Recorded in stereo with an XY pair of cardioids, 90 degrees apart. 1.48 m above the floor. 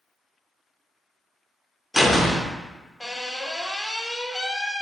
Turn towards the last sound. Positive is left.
turn(degrees=10)